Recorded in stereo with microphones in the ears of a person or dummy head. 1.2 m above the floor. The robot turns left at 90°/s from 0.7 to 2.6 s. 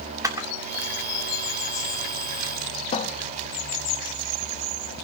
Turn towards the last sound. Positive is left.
turn(degrees=35)  # may be behind; listen again after turning